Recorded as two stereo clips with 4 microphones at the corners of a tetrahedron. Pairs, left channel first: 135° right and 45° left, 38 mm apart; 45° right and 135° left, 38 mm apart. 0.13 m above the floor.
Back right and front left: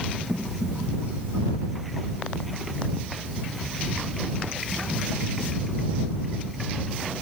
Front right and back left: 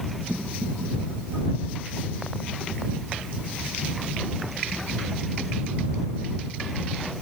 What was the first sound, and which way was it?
Only background noise.